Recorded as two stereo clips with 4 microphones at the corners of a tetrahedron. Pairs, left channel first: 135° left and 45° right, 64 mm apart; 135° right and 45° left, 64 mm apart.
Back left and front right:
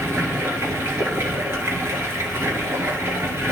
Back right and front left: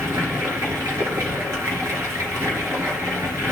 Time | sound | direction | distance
0.0 | running water | 5° left | 3 m